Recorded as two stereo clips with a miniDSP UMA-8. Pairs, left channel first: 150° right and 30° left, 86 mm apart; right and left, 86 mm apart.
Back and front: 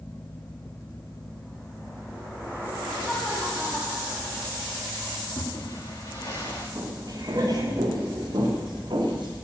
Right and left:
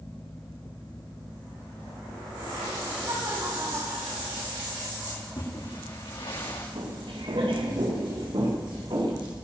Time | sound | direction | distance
3.0 | laughter | 125° left | 6.5 m
5.1 | a splash | 105° right | 6.5 m
6.8 | footsteps | 80° left | 3.5 m